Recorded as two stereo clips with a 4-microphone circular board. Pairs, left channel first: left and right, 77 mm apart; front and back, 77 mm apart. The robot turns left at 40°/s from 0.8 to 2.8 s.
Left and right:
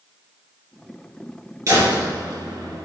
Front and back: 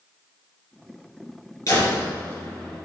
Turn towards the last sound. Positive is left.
turn(degrees=-90)